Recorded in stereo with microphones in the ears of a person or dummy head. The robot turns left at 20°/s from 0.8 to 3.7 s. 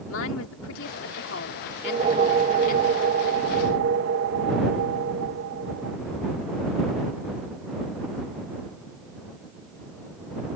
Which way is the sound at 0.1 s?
90° left.